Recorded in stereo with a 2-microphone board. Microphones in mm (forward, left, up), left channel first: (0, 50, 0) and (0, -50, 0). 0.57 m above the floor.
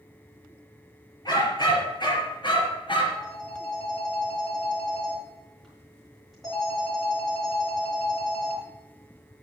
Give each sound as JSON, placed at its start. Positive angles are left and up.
{"t": 1.2, "sound": "a dog barking", "side_deg": 45, "distance_m": 4.5}
{"t": 3.1, "sound": "a phone ringing", "side_deg": 0, "distance_m": 5.5}